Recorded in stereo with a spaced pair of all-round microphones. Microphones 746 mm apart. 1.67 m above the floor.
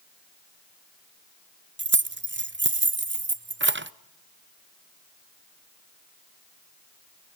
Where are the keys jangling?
20° right (ahead or behind), 0.5 m.